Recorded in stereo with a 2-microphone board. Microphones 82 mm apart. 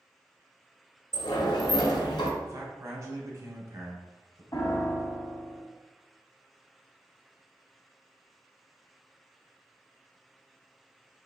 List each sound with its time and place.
1.1 s a sliding door: 70° left (ahead or behind), 0.9 m
2.4 s a man speaking: 40° right (ahead or behind), 1.1 m
4.5 s a piano: 45° left (ahead or behind), 0.9 m